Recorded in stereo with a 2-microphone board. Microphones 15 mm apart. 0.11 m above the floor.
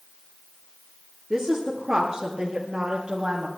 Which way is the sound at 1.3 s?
30° right (ahead or behind).